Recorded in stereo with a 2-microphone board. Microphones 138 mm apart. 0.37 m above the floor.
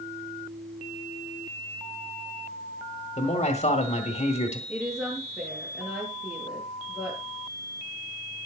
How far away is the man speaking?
About 1.6 m.